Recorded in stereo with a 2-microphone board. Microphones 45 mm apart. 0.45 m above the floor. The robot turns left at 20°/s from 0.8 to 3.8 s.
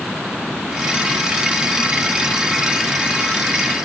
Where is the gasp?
I don't hear a gasp.